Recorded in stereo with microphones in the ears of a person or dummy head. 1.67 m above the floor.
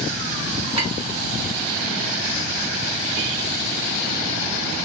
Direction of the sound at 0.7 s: 15° right (ahead or behind).